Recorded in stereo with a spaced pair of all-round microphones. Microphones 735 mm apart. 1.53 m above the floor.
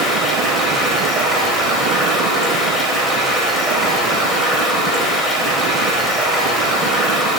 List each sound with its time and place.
0.0 s running water: centre (ahead or behind), 2.0 m